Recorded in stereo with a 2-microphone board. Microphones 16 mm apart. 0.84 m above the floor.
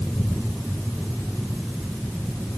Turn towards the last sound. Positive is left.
No sound to turn to.